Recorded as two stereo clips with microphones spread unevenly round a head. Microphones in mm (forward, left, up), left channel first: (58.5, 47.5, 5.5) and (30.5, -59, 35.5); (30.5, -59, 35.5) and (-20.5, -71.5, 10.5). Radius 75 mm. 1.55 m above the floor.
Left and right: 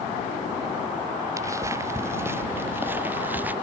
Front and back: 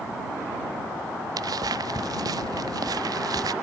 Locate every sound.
1.4 s footsteps: 175° right; by 3.5 s straight behind